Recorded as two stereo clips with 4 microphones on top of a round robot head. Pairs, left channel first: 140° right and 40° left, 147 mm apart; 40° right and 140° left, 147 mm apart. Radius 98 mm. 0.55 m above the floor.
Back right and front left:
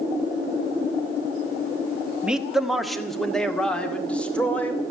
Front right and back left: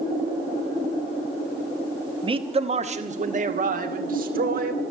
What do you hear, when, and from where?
2.2 s a man speaking: 120° left, 1.5 m; by 4.8 s 140° left, 3 m